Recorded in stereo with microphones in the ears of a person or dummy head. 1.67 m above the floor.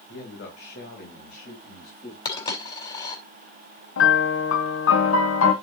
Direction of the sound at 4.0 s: 80° left.